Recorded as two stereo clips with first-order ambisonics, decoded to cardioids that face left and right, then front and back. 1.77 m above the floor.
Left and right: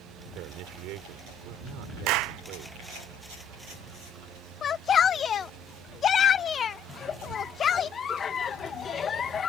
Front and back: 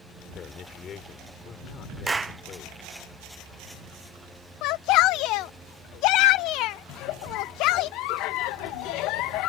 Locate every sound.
0.3 s a man speaking: 60° right
2.1 s a clap: 100° right
4.6 s a shout: 25° left
6.9 s a giggle: 25° left